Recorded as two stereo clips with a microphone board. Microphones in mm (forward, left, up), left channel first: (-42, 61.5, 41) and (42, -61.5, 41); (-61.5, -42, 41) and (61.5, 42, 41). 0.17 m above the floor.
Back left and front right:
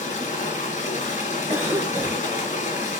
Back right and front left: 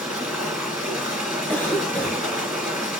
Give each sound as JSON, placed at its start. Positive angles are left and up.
{"t": 0.0, "sound": "running water", "azimuth_deg": 115, "distance_m": 1.8}
{"t": 1.5, "sound": "a cough", "azimuth_deg": -95, "distance_m": 1.0}